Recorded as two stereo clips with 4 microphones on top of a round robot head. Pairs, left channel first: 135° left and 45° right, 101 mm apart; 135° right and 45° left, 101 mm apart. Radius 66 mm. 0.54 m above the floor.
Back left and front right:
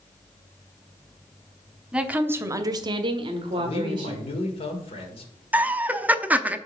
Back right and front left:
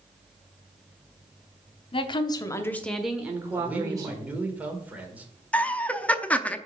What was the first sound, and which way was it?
A woman speaking, 125° right.